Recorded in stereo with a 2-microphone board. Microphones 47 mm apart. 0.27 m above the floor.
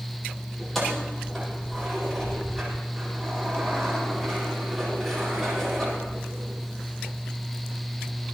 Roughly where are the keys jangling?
Centre.